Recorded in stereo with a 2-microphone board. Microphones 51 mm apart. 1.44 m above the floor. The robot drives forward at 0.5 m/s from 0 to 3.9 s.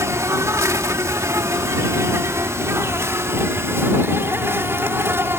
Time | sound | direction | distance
0.0 | an insect | 80° right | ?